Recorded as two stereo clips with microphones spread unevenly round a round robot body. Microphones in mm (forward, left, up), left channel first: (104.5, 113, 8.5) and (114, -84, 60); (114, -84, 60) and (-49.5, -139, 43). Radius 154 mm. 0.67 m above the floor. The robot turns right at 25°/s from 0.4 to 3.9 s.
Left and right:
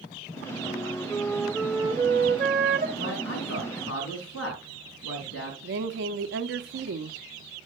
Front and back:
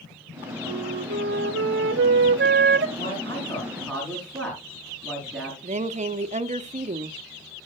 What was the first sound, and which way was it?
A flute, 165° left.